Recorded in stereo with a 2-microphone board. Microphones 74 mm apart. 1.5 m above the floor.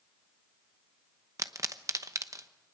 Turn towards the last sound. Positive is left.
turn(degrees=-50)  # may be behind; listen again after turning